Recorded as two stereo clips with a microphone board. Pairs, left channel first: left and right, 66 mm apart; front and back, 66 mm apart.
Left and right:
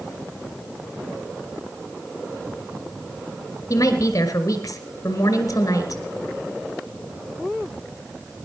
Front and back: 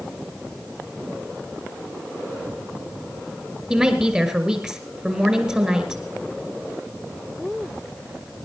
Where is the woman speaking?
110° left, 1.7 m.